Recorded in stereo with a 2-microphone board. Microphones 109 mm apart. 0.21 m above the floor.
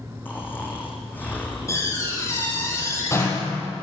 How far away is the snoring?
About 5.5 m.